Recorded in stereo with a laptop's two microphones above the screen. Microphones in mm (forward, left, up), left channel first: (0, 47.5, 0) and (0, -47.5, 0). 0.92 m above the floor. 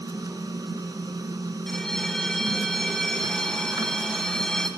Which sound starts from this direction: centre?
A bell, at 1.7 s.